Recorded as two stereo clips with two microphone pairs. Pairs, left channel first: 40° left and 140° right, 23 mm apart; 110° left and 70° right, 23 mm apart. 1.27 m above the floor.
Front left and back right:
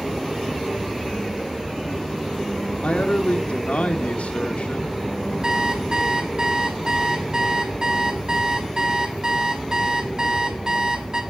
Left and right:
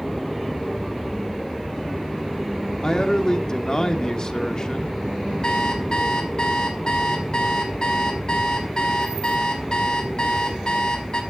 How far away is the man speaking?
About 2.5 m.